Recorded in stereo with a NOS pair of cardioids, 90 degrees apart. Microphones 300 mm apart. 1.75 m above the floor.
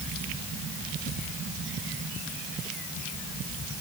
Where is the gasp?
I don't hear a gasp.